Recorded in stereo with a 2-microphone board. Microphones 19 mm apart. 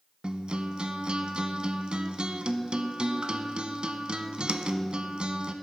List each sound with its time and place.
0.2 s a guitar: 60° right (ahead or behind), 0.6 m